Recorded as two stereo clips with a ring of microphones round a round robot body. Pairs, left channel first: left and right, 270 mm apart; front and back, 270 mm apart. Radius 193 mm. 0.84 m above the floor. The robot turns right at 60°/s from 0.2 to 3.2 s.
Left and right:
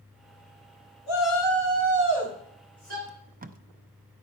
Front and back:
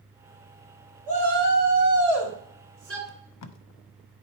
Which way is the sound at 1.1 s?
105° left.